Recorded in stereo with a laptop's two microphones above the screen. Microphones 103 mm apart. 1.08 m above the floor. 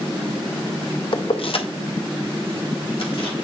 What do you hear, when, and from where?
1.1 s keys jangling: 60° left (ahead or behind), 0.5 m; by 3.4 s 65° left (ahead or behind), 1.7 m